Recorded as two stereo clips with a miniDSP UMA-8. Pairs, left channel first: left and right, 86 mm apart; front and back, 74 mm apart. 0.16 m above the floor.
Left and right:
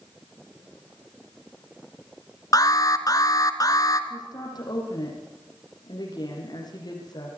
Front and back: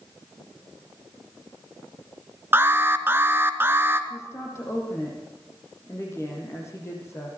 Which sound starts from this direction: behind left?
An alarm, at 2.5 s.